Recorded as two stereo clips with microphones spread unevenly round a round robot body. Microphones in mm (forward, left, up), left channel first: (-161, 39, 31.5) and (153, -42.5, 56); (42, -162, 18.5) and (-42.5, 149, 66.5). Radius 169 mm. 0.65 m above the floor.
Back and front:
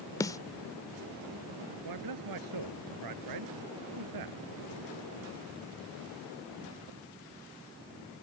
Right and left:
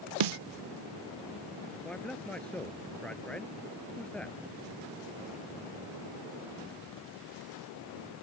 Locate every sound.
0.2 s a snare drum: 85° left
1.9 s a man speaking: 15° left